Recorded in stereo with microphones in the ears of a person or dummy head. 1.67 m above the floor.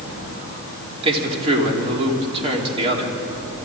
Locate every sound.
1.0 s a man speaking: 30° right (ahead or behind), 4 m